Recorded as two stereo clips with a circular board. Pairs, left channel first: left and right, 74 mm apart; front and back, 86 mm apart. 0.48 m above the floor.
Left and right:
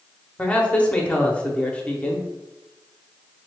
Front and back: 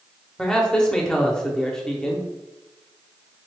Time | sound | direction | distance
0.4 | a man speaking | 65° left | 0.7 m